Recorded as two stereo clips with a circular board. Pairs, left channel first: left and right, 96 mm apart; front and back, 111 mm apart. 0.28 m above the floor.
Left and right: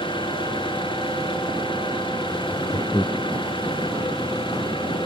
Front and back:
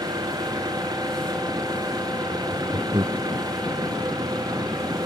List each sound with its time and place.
0.0 s an engine running: 125° left
2.3 s laughter: 130° left